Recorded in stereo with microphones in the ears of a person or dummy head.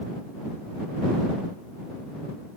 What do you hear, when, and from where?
Only background noise.